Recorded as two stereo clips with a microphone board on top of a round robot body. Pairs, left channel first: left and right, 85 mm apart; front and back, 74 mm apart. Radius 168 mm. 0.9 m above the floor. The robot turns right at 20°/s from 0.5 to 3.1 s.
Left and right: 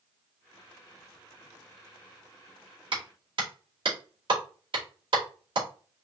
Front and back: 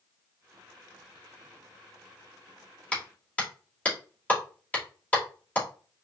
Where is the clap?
75° right, 2.5 m; by 5.7 s 70° right, 2.5 m.